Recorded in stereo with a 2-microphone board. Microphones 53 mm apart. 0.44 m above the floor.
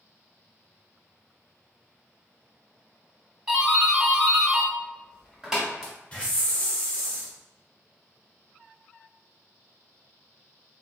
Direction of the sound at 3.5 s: 5° right (ahead or behind).